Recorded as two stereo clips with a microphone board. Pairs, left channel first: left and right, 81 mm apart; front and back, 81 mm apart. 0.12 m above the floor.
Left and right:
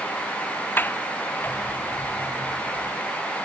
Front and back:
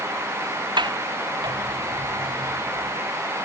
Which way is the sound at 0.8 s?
155° left.